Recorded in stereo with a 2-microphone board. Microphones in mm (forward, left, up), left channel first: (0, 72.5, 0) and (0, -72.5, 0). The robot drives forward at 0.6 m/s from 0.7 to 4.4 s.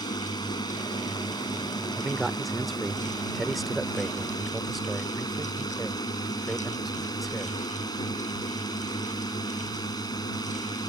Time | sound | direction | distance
0.0 | a drone | 30° left (ahead or behind) | ?
2.0 | a man speaking | centre (ahead or behind) | ?